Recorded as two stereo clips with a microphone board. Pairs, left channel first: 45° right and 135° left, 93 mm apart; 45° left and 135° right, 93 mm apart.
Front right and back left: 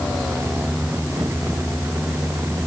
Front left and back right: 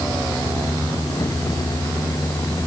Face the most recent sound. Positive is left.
No sound to turn to.